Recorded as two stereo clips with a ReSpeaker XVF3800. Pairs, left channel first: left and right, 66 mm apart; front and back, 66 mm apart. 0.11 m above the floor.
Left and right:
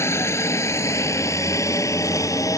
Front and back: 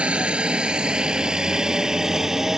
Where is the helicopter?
115° left; by 2.6 s 100° left.